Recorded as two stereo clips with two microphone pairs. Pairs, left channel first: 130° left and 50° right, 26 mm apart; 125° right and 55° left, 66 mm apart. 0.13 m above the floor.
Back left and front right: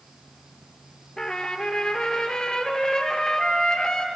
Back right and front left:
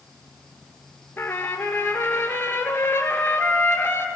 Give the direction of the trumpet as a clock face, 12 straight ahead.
6 o'clock.